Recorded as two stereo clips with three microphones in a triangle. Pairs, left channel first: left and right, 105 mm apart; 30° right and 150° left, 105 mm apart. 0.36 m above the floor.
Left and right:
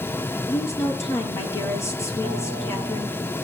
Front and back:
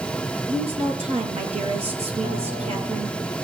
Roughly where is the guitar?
Behind left.